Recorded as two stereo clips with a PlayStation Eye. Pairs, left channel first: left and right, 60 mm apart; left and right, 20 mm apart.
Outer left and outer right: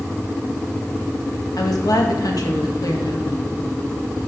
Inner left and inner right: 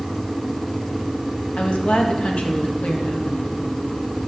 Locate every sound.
1.6 s a woman speaking: 80° left, 1.6 m